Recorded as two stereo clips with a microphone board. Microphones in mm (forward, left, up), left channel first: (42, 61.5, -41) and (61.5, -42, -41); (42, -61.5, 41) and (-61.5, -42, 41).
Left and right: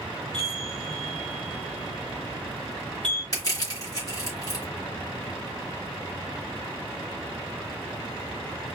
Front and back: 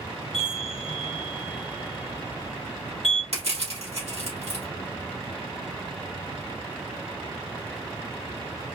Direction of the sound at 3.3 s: 155° left.